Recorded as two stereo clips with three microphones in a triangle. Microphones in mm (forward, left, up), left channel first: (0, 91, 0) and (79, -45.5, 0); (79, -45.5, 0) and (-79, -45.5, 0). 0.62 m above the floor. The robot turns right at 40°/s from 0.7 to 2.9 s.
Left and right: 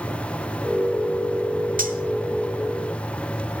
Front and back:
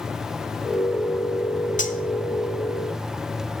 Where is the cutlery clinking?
35° right, 1.1 m; by 2.0 s 25° right, 1.1 m.